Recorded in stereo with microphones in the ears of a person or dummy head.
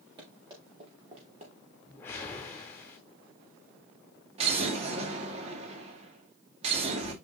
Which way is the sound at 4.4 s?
40° right (ahead or behind).